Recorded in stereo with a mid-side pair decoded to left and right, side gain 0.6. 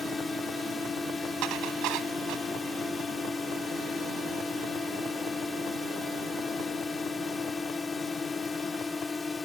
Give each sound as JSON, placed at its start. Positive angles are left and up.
{"t": 0.0, "sound": "a drone", "azimuth_deg": 20}
{"t": 1.4, "sound": "dishes clattering", "azimuth_deg": -70}